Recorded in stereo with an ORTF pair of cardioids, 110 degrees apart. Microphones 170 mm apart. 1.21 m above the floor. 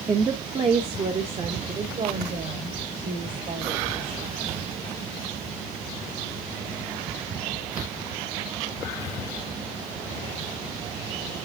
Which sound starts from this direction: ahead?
A woman speaking, at 0.1 s.